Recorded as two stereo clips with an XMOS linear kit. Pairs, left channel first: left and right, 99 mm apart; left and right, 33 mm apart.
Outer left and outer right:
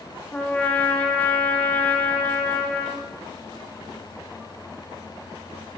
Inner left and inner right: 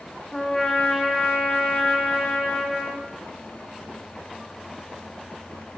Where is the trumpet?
10° left (ahead or behind), 6.5 m.